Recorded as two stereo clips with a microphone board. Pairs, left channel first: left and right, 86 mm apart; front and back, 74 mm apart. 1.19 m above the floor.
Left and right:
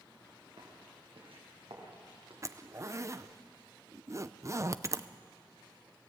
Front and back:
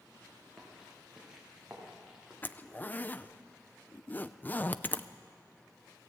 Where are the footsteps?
95° right, 7 m.